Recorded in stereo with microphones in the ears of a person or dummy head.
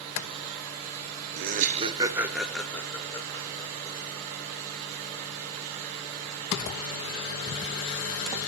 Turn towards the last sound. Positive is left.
turn(degrees=30)  # may be behind; listen again after turning